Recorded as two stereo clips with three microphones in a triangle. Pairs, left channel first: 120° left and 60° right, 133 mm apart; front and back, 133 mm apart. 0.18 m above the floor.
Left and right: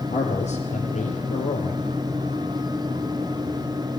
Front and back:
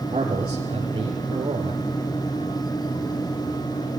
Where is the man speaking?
130° left, 4 m.